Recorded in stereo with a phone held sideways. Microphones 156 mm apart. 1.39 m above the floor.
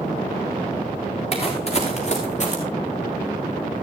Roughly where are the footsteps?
Left.